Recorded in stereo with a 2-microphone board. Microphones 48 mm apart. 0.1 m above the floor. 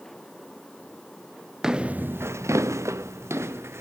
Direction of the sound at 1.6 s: 10° right (ahead or behind).